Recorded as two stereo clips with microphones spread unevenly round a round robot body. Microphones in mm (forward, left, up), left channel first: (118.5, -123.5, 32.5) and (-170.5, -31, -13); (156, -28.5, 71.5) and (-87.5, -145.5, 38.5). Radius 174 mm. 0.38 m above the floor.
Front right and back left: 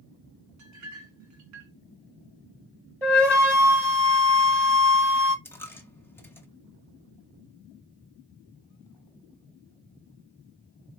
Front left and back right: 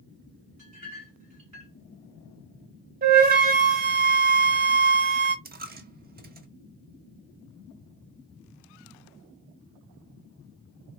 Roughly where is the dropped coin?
Right.